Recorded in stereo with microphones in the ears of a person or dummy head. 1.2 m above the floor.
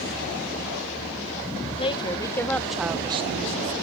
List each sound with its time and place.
1.8 s a woman speaking: 25° left (ahead or behind); by 3.7 s 55° right (ahead or behind)